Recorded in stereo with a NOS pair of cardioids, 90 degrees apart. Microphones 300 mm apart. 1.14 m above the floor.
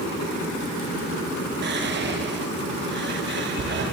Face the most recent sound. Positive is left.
turn(degrees=-35)